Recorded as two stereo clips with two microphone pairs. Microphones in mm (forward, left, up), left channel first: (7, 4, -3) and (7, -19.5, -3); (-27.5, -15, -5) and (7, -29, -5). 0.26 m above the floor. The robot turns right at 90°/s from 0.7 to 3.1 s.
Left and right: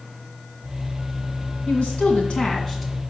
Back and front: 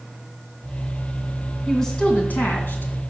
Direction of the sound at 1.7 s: 70° left.